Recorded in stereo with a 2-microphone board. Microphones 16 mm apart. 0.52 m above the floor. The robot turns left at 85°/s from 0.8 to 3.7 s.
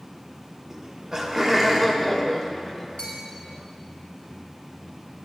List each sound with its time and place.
0.7 s laughter: 75° right, 1.3 m; by 2.9 s 105° left, 1.3 m
3.0 s a bell: 60° left (ahead or behind), 3 m; by 3.2 s 75° left (ahead or behind), 3 m